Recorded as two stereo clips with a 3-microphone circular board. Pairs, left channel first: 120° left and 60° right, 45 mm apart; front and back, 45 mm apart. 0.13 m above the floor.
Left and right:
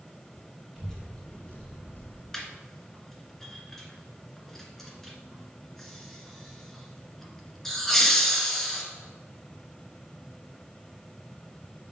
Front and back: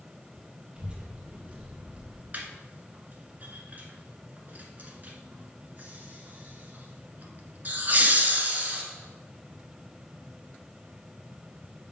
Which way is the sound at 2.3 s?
160° right.